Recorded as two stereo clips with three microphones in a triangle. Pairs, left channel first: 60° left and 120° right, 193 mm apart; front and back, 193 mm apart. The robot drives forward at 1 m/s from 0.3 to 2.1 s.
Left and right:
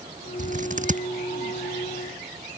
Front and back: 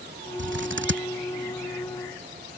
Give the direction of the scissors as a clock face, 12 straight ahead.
6 o'clock.